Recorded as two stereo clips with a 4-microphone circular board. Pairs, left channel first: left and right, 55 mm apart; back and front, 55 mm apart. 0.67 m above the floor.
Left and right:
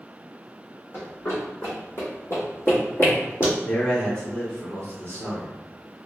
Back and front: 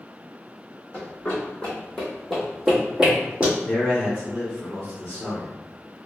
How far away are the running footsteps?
About 1.5 m.